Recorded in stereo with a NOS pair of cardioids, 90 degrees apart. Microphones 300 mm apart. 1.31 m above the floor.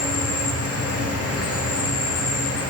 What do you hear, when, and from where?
0.0 s an insect: 50° left, 1.9 m